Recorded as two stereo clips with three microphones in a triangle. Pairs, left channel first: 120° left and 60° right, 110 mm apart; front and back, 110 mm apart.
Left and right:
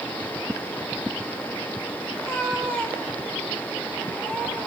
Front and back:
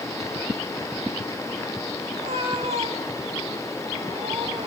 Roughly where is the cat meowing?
Behind.